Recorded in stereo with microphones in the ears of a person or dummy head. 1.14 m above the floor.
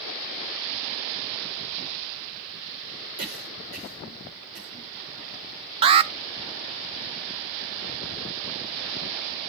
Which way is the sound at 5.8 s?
30° right (ahead or behind).